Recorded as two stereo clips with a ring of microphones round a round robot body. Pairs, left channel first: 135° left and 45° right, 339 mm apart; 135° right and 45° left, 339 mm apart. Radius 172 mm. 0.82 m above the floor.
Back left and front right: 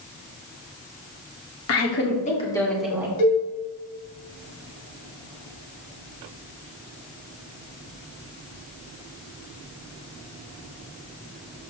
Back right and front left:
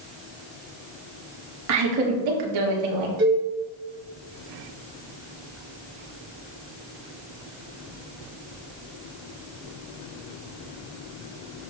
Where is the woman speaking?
90° left, 2.0 m; by 3.1 s 35° left, 2.5 m.